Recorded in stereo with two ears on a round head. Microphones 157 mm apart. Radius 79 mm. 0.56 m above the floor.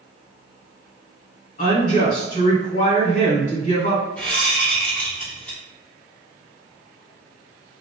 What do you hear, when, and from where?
1.6 s a woman speaking: 45° left (ahead or behind), 2.0 m
4.2 s a whoosh: 10° left (ahead or behind), 1.6 m